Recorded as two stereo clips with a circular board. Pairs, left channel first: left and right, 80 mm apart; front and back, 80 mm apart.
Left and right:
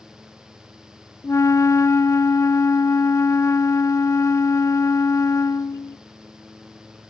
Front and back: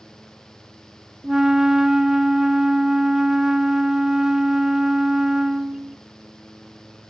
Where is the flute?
100° left, 0.6 m.